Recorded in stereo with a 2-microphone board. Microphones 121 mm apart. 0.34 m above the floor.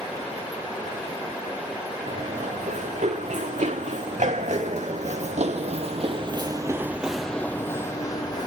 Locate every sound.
2.1 s running footsteps: 80° right, 2.5 m; by 8.5 s 35° left (ahead or behind), 1.1 m